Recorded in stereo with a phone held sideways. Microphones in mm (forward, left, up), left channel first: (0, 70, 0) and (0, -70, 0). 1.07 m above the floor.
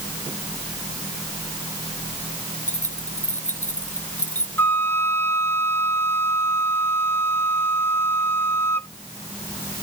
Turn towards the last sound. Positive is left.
turn(degrees=15)  # may be behind; listen again after turning